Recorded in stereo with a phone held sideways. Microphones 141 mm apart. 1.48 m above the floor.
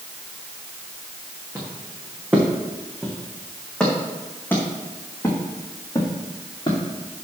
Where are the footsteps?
15° right (ahead or behind), 4.5 m; by 6.8 s 35° left (ahead or behind), 4.5 m.